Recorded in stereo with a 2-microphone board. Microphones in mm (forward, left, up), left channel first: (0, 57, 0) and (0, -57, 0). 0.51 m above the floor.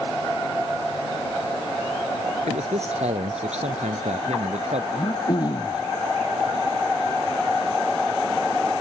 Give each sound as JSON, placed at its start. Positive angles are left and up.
{"t": 2.5, "sound": "a man speaking", "side_deg": -75}
{"t": 4.9, "sound": "throat clearing", "side_deg": 40}